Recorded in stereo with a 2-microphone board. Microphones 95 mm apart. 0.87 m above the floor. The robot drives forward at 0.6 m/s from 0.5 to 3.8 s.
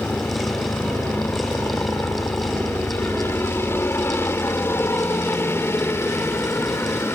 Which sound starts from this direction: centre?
A helicopter, at 0.0 s.